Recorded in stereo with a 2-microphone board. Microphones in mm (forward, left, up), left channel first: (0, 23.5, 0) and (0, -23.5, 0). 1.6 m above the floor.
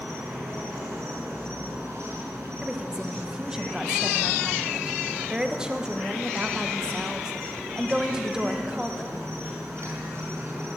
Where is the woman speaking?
15° right (ahead or behind), 1.1 m.